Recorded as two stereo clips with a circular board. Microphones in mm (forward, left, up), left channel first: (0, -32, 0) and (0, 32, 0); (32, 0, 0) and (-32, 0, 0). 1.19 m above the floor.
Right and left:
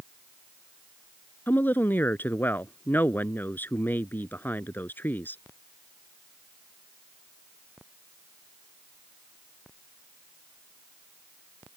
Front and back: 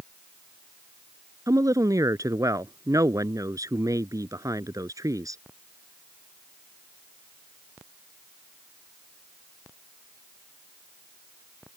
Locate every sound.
1.5 s a woman speaking: 150° right